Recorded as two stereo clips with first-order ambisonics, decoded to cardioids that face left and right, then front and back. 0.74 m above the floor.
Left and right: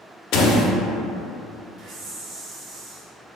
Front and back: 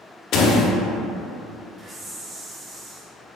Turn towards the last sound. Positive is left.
turn(degrees=-125)